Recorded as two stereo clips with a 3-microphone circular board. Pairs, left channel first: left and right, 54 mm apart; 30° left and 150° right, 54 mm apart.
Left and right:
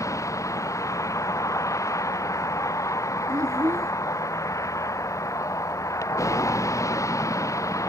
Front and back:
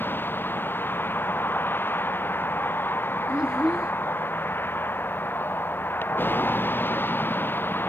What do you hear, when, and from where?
0.0 s a vehicle: 80° left
3.3 s a child speaking: 70° right